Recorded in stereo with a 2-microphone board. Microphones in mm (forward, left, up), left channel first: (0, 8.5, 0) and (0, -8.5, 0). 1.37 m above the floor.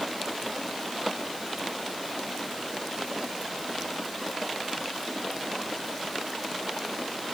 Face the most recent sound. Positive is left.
No sound to turn to.